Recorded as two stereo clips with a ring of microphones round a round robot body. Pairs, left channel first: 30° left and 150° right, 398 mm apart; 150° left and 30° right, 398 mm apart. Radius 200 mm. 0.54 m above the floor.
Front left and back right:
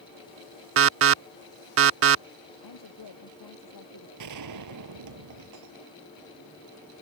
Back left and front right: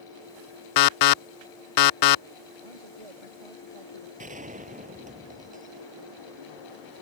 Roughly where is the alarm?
Behind.